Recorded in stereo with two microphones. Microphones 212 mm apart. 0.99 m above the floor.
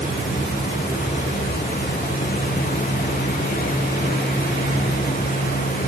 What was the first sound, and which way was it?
Only background noise.